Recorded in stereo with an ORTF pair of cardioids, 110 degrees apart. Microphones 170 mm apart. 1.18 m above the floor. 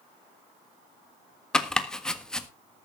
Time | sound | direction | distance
1.5 | chopping | 5° left | 1.5 m